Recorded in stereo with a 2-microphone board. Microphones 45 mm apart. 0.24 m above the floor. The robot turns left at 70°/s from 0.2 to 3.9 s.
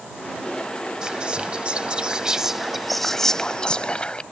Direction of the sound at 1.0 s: 20° right (ahead or behind).